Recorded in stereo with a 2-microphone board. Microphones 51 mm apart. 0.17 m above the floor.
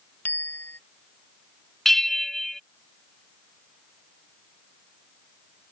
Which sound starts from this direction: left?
A bicycle bell, at 0.2 s.